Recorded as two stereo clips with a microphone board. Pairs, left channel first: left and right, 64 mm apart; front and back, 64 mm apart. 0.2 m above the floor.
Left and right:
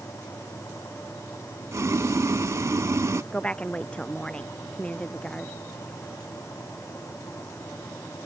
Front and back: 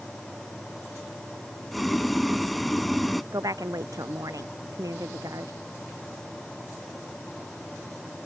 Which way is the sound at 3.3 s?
160° left.